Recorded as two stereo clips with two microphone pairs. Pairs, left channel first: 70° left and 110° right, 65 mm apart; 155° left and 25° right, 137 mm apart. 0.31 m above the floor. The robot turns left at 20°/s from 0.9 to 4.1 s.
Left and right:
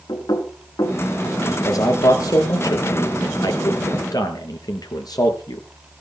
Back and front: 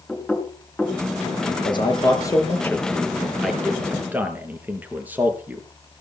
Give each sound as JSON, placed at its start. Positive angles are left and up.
{"t": 0.1, "sound": "knocking", "azimuth_deg": 70, "distance_m": 3.5}
{"t": 1.5, "sound": "a man speaking", "azimuth_deg": 105, "distance_m": 5.0}